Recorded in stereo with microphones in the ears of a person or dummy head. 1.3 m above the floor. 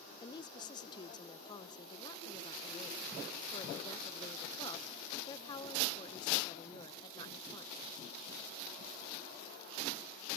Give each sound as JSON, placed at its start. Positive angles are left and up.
{"t": 0.2, "sound": "a woman speaking", "side_deg": 25}